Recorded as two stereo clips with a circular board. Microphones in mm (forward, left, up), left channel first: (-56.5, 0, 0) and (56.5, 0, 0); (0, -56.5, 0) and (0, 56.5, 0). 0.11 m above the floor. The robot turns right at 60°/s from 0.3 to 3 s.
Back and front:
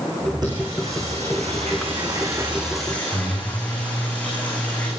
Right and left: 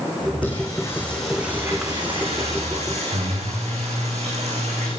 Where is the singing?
50° right, 9 m; by 4.9 s 105° left, 9 m.